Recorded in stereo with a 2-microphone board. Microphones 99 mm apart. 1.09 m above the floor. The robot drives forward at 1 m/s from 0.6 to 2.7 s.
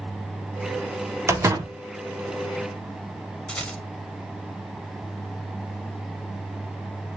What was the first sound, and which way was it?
A door slam, 30° right (ahead or behind).